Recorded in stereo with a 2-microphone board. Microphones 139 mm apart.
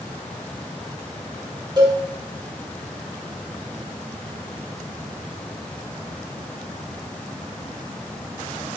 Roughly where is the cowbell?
Right.